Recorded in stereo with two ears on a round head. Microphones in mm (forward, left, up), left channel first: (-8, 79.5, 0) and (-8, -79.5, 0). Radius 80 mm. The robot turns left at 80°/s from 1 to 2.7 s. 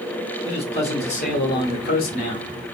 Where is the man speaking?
140° left, 1.1 m; by 2.5 s 25° left, 1.1 m.